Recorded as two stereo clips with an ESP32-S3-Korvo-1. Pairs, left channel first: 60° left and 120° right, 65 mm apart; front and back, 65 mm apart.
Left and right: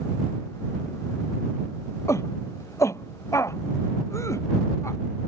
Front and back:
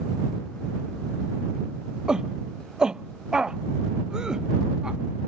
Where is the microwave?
No microwave in this recording.